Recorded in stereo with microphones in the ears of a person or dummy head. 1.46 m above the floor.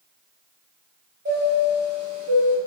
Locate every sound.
1.2 s a chime: 40° right (ahead or behind), 1.3 m